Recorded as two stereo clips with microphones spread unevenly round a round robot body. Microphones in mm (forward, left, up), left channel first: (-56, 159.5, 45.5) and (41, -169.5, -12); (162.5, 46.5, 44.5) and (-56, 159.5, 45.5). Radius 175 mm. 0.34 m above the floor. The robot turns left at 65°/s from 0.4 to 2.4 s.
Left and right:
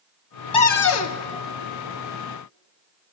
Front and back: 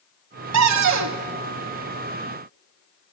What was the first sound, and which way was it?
A cupboard door, 175° right.